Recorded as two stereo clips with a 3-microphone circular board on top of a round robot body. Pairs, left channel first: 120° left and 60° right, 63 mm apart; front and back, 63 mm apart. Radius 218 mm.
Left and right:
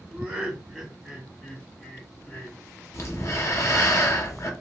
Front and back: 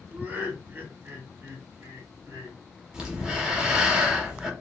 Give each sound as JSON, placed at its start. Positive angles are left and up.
{"t": 0.1, "sound": "laughter", "azimuth_deg": -125, "distance_m": 1.9}
{"t": 2.9, "sound": "breathing", "azimuth_deg": 105, "distance_m": 1.1}